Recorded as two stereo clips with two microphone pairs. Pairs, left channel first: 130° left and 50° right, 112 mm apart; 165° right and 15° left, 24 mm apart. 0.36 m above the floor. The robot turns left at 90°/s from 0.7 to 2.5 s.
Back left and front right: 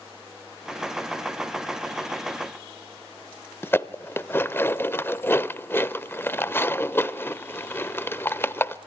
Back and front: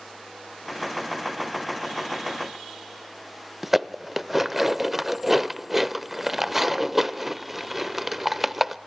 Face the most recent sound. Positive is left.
turn(degrees=80)